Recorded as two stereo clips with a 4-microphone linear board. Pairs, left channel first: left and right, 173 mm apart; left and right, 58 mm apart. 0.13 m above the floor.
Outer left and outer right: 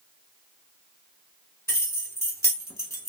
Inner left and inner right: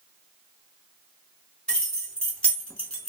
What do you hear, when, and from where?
1.7 s keys jangling: 15° left (ahead or behind), 1.4 m